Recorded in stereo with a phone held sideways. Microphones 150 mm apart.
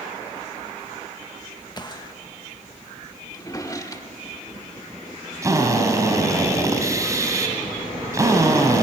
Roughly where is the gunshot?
Left.